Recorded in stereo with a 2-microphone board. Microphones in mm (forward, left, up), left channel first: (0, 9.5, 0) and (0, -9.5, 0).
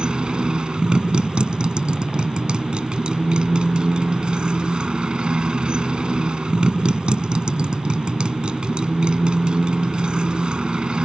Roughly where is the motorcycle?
Right.